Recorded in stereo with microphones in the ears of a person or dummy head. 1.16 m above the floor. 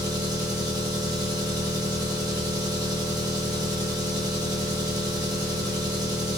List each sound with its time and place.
0.0 s an engine running: 20° right (ahead or behind), 0.8 m